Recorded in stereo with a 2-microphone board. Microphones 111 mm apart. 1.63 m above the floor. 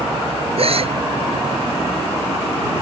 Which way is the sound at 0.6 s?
60° right (ahead or behind).